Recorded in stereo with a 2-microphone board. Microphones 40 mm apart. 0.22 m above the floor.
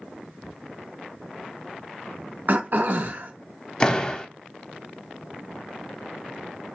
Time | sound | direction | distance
2.5 | throat clearing | 50° right (ahead or behind) | 0.8 m
3.8 | a door slam | 20° left (ahead or behind) | 0.7 m